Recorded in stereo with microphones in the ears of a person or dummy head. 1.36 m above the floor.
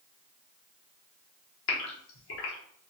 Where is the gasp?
70° left (ahead or behind), 1.0 m.